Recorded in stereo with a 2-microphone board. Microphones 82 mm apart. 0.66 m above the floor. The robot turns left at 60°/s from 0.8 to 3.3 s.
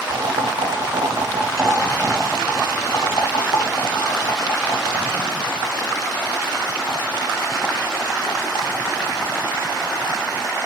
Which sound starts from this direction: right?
Boiling, at 0.1 s.